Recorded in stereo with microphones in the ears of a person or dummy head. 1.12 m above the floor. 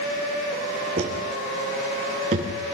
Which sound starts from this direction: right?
Footsteps, at 1.0 s.